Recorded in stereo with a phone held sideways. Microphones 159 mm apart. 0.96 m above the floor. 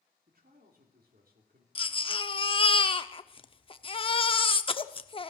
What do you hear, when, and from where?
0.3 s a man speaking: 70° right (ahead or behind), 2.5 m
1.8 s a baby crying: 35° left (ahead or behind), 0.6 m